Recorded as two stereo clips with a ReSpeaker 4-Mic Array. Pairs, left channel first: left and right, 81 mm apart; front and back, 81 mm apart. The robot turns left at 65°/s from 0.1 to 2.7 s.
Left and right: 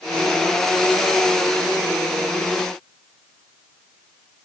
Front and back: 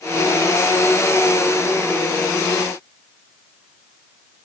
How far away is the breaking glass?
I don't hear breaking glass.